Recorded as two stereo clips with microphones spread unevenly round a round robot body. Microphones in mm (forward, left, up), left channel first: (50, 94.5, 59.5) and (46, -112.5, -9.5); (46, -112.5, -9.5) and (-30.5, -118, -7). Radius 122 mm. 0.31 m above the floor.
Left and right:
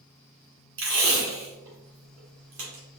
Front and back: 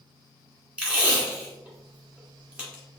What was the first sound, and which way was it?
Tape being pulled, 100° right.